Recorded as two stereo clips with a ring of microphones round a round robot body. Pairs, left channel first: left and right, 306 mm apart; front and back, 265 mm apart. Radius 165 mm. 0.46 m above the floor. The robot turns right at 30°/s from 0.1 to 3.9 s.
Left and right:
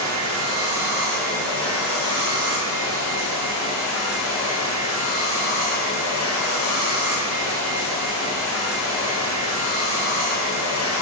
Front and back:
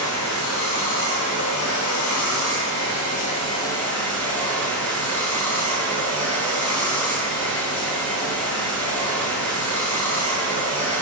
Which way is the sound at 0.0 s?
30° right.